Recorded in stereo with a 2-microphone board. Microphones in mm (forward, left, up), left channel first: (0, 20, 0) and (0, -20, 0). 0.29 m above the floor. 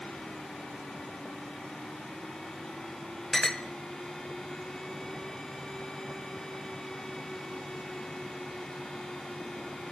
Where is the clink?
10° left (ahead or behind), 0.9 m.